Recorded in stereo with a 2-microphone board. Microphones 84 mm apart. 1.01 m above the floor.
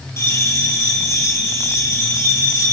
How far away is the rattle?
I don't hear a rattle.